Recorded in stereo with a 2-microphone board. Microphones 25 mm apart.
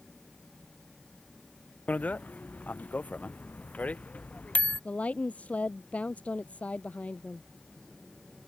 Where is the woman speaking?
60° left (ahead or behind).